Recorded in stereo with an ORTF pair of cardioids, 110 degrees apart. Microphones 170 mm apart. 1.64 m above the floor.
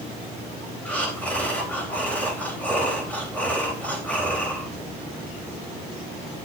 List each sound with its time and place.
0.8 s breathing: 10° left, 3.5 m